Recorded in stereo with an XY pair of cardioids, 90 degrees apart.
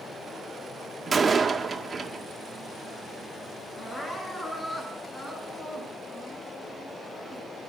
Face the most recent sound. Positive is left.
turn(degrees=20)